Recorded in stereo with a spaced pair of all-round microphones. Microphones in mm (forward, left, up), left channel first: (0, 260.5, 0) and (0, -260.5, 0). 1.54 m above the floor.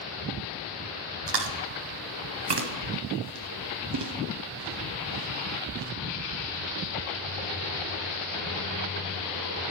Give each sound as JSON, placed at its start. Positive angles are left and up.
{"t": 1.3, "sound": "chewing", "side_deg": -55, "distance_m": 0.6}